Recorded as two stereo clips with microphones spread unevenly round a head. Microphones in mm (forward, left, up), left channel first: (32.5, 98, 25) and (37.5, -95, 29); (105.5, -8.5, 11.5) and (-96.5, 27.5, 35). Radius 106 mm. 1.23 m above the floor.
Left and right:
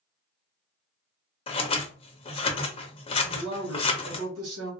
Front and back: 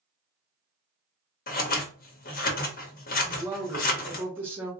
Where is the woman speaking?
110° right, 1.9 m.